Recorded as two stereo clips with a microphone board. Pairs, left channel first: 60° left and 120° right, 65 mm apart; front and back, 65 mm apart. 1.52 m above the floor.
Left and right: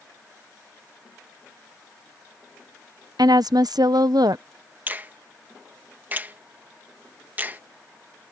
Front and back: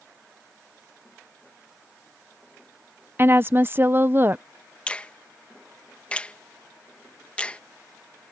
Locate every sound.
3.2 s a woman speaking: 120° right
4.9 s a finger snap: 70° right